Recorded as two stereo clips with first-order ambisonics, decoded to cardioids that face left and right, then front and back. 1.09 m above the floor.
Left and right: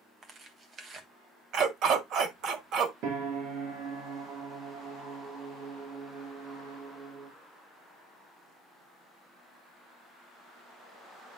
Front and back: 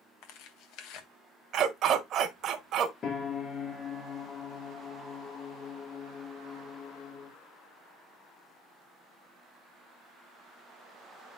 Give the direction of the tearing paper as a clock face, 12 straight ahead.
1 o'clock.